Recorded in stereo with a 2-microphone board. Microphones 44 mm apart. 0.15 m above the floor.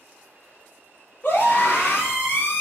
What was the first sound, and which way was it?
A scream, 40° left (ahead or behind).